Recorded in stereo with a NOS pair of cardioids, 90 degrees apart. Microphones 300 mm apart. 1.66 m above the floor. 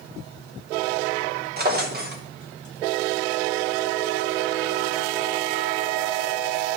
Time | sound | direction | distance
1.6 | a drawer | 35° right | 3 m